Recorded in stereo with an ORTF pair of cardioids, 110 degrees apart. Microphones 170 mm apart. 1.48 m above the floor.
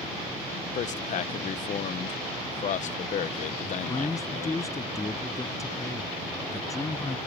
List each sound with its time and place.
0.8 s a man speaking: 45° left
3.6 s a man speaking: 20° left